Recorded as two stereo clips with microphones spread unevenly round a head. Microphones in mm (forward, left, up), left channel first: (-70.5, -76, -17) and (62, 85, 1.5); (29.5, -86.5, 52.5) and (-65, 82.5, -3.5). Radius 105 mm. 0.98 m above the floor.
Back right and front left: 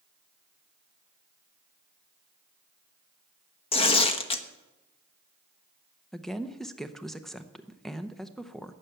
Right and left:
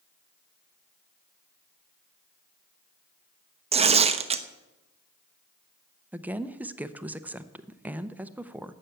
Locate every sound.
3.7 s tearing paper: 170° left, 1.0 m
6.1 s a woman speaking: 155° left, 0.7 m